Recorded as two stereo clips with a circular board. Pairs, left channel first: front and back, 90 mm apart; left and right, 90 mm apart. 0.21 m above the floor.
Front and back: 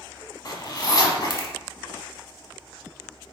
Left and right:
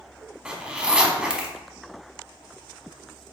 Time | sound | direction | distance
0.5 | a zipper | 15° right | 0.7 m